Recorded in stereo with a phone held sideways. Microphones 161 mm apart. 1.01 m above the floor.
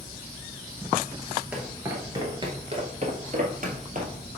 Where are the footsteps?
5° right (ahead or behind), 1.3 m; by 4.2 s 55° right (ahead or behind), 1.7 m.